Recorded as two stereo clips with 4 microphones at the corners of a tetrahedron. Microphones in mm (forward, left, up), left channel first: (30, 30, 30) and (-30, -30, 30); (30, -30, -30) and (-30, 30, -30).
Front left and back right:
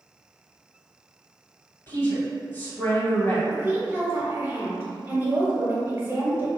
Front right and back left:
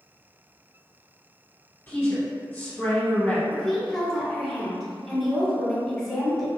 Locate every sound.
1.9 s a woman speaking: 5° left, 1.8 m
3.5 s a woman speaking: 130° right, 1.1 m